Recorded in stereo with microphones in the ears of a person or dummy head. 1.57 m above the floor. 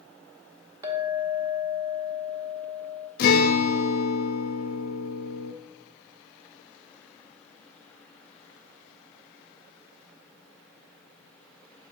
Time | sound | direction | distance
0.8 | a clink | 10° right (ahead or behind) | 1.1 m
3.2 | a guitar | 55° left (ahead or behind) | 0.8 m